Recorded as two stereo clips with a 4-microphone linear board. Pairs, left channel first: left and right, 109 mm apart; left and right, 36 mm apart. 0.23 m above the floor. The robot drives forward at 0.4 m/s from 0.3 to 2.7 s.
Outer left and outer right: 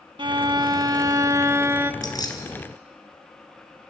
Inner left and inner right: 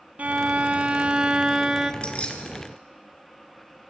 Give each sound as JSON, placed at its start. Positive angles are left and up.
{"t": 0.2, "sound": "a violin", "side_deg": -50, "distance_m": 0.5}
{"t": 2.0, "sound": "keys jangling", "side_deg": 35, "distance_m": 2.5}